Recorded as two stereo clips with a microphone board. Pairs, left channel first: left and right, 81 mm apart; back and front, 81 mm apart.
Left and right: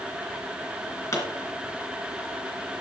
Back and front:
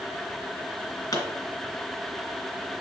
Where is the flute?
I don't hear a flute.